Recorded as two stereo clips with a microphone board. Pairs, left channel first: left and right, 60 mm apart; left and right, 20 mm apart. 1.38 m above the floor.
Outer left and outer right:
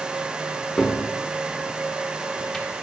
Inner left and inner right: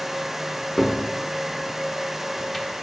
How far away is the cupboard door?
About 1.3 m.